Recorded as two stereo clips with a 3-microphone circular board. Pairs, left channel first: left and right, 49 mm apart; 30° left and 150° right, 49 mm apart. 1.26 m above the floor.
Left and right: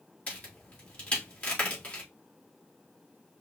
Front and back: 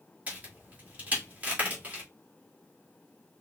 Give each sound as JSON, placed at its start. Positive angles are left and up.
{"t": 0.3, "sound": "a crack", "azimuth_deg": 150, "distance_m": 2.5}